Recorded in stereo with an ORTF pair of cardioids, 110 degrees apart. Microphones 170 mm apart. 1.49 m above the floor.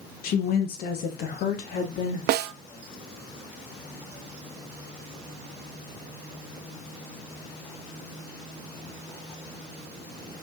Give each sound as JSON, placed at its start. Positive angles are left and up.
{"t": 0.2, "sound": "a woman speaking", "azimuth_deg": 60, "distance_m": 1.7}
{"t": 2.3, "sound": "a snare drum", "azimuth_deg": -65, "distance_m": 0.6}